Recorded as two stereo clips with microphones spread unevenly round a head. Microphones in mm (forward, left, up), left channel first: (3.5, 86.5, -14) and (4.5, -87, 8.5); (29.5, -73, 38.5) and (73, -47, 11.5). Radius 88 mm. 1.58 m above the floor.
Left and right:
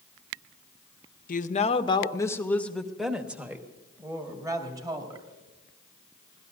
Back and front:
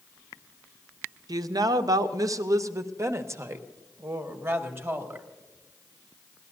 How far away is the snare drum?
No snare drum in this recording.